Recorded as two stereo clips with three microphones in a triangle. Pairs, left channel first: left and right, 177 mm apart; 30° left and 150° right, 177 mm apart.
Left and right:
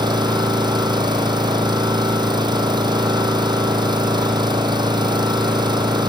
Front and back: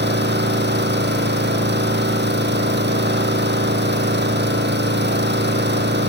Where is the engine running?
155° right, 3.5 m.